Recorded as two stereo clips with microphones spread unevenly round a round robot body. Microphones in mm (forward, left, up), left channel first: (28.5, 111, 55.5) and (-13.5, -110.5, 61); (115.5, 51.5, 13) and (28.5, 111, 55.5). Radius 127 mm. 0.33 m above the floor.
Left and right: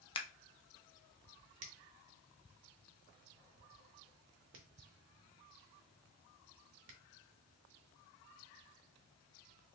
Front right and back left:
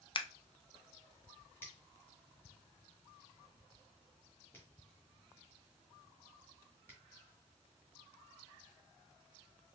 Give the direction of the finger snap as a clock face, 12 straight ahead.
3 o'clock.